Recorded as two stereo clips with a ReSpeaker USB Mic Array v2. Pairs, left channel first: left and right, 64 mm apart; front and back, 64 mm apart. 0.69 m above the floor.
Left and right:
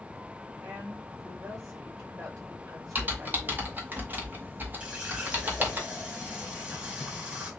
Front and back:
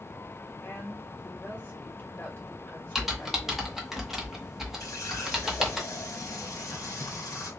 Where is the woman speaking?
65° right, 3 m.